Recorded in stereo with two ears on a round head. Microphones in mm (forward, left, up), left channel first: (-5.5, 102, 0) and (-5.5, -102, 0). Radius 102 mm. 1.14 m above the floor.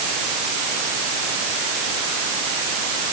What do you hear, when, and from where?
Only background noise.